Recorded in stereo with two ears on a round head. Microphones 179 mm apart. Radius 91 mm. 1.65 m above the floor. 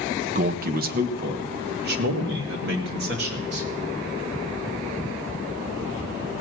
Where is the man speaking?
40° right (ahead or behind), 0.7 m; by 3.7 s 60° right (ahead or behind), 3 m.